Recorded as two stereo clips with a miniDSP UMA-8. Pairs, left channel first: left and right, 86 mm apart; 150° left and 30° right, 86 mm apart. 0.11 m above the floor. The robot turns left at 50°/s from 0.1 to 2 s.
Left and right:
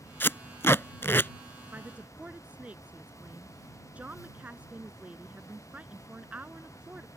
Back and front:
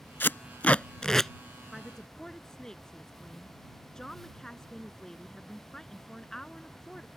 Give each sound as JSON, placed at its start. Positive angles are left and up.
{"t": 0.2, "sound": "tape being pulled", "azimuth_deg": 120}
{"t": 1.7, "sound": "a woman speaking", "azimuth_deg": -125}